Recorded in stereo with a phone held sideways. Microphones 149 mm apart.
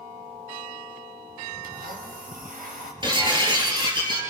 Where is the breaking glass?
30° right (ahead or behind), 6 m.